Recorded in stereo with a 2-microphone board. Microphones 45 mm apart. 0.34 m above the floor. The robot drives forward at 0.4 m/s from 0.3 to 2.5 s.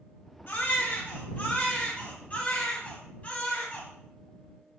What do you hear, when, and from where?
0.5 s a baby crying: 45° left (ahead or behind), 1.2 m; by 3.9 s 30° left (ahead or behind), 1.7 m